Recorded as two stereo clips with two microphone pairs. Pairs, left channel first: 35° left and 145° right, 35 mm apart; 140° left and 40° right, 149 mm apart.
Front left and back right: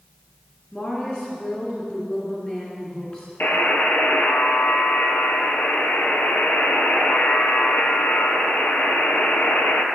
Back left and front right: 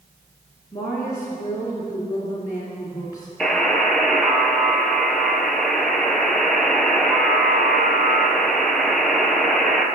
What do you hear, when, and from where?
0.7 s a woman speaking: 80° left, 1.9 m
3.4 s a buzzer: 50° left, 0.9 m